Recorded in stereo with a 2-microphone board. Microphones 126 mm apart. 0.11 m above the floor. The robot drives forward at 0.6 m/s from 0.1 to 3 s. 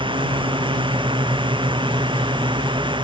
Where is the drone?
40° right (ahead or behind).